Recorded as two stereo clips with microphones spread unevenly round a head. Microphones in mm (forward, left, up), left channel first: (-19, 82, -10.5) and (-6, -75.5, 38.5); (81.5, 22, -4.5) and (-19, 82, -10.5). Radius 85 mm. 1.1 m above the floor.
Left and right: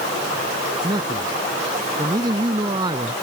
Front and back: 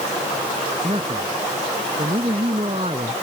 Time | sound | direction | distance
0.8 | a man speaking | 150° right | ?